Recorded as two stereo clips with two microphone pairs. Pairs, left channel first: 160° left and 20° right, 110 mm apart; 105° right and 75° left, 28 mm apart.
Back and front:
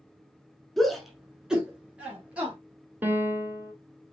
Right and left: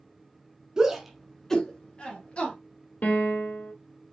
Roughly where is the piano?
Right.